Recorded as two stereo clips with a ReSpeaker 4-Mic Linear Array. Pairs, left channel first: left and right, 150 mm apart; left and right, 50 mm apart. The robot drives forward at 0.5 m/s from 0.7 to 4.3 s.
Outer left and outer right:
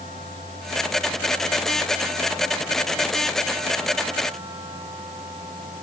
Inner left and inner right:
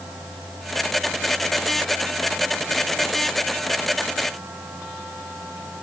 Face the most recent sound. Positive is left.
No sound to turn to.